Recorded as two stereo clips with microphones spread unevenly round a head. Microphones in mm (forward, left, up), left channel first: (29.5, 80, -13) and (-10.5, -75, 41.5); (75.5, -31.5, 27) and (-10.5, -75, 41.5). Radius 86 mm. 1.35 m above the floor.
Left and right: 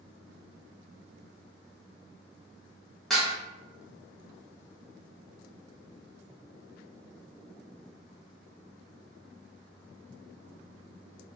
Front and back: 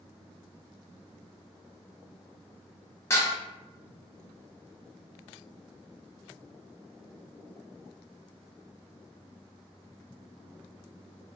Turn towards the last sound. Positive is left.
turn(degrees=-35)